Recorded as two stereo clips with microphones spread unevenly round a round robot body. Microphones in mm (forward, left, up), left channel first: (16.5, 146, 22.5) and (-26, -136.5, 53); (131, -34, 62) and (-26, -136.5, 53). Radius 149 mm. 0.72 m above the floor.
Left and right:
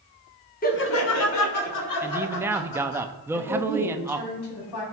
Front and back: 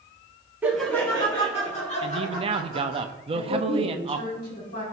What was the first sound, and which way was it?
Laughter, 135° left.